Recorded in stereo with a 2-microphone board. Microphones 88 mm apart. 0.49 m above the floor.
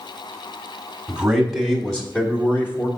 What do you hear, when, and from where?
1.1 s a man speaking: 5° right (ahead or behind), 1.4 m; by 2.9 s 25° left (ahead or behind), 1.3 m